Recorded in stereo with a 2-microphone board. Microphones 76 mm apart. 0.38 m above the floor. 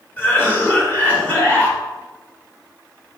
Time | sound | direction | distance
0.2 | a cough | 25° left (ahead or behind) | 1.4 m